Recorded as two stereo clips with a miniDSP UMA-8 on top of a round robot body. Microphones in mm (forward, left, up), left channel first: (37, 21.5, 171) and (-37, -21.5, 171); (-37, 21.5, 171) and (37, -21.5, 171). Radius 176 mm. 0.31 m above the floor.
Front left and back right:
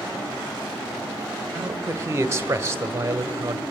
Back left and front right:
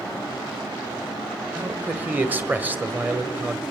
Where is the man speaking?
95° right, 1.7 m.